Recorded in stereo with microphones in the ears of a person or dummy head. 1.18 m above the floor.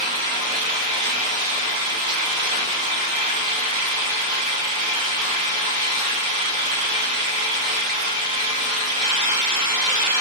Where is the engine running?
40° right (ahead or behind), 1.5 m.